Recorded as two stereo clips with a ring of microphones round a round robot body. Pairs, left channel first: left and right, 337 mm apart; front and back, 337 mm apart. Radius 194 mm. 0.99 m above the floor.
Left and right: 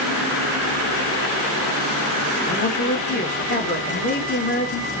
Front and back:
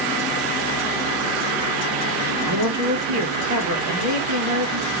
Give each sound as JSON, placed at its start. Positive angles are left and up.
{"t": 2.5, "sound": "a man speaking", "azimuth_deg": 155, "distance_m": 1.2}